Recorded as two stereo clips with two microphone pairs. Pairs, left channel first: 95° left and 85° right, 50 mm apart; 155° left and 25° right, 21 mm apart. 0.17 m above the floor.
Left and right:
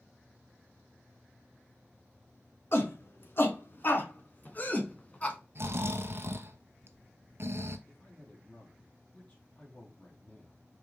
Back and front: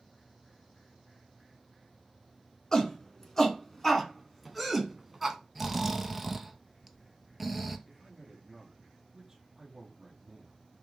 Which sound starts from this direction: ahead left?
A man speaking, at 7.9 s.